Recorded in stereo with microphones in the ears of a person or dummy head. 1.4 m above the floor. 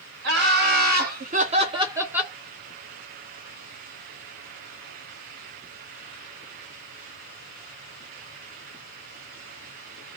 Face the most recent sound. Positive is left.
turn(degrees=5)  # may be behind; listen again after turning